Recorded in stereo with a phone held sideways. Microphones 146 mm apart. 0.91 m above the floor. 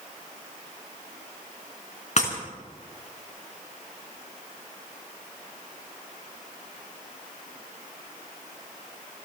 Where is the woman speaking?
I don't hear a woman speaking.